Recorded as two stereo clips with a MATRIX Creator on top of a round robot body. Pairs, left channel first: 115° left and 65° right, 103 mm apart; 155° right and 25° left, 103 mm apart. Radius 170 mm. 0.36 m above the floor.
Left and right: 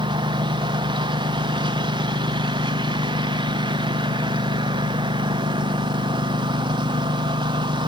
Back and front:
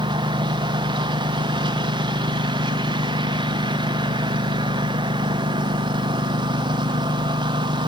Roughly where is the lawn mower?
Ahead right.